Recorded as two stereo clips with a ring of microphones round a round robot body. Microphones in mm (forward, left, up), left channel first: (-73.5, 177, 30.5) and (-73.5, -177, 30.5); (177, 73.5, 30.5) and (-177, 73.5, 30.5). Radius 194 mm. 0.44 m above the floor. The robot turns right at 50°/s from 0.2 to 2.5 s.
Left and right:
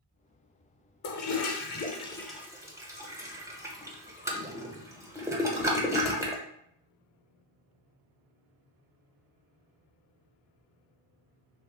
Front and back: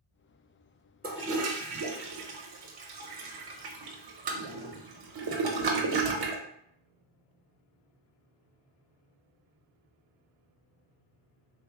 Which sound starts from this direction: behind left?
A toilet flushing, at 1.0 s.